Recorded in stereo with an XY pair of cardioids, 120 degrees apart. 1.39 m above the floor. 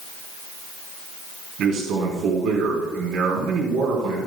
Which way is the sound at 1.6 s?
70° right.